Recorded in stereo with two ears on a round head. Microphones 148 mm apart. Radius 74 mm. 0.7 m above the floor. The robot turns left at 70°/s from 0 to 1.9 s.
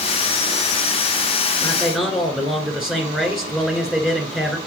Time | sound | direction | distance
1.6 | a man speaking | 15° left (ahead or behind) | 2.5 m